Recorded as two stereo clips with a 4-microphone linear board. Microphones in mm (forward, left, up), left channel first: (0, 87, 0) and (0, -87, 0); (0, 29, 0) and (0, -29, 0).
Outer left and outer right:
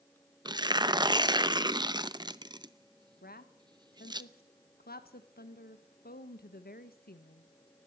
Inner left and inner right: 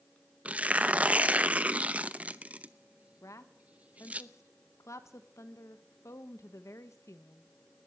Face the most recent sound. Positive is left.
turn(degrees=65)  # may be behind; listen again after turning